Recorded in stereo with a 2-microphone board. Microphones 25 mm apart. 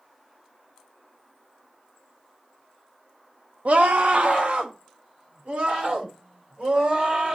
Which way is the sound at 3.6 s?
70° right (ahead or behind).